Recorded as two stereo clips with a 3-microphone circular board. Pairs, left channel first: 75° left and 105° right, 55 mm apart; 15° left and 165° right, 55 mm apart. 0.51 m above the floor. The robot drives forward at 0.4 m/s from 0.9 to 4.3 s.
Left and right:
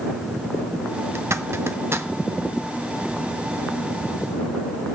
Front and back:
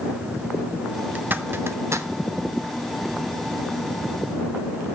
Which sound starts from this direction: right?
A zipper, at 1.1 s.